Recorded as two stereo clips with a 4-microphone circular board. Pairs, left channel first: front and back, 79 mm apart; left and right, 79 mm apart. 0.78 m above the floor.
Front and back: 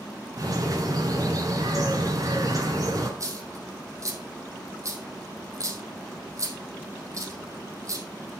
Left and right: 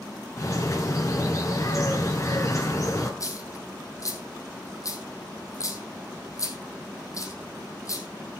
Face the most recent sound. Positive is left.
turn(degrees=135)